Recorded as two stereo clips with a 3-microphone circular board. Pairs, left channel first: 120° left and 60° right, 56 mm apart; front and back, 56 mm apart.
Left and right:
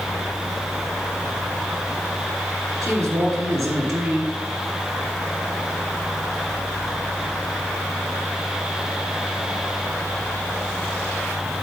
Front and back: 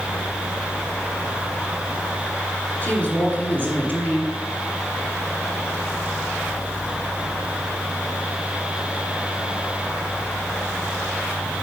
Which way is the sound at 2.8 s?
55° right.